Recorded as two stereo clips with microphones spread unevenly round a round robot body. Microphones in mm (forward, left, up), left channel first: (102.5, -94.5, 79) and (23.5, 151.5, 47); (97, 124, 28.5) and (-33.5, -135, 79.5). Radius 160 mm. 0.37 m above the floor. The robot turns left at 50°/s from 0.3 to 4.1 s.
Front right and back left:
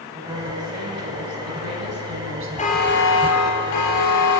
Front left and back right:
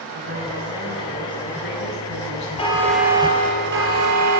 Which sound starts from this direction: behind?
A woman speaking, at 0.1 s.